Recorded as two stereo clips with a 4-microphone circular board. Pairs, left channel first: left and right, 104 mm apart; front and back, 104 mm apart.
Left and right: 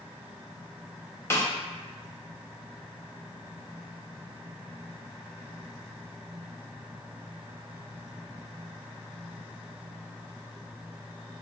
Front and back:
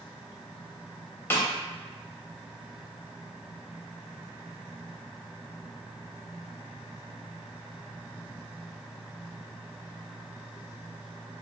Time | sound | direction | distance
1.3 | a snare drum | 50° left | 0.5 m